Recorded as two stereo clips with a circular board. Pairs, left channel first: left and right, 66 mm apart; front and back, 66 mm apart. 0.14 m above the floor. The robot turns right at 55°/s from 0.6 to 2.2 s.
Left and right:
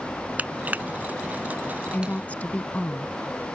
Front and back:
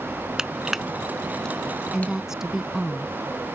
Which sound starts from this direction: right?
Crushing, at 0.4 s.